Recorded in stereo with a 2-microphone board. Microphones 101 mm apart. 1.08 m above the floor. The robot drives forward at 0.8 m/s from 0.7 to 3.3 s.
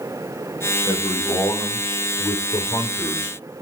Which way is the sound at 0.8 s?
65° left (ahead or behind).